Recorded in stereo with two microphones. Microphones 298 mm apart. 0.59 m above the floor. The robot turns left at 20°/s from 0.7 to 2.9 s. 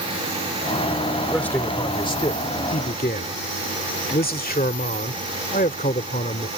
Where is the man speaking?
175° left; by 6.5 s 145° left.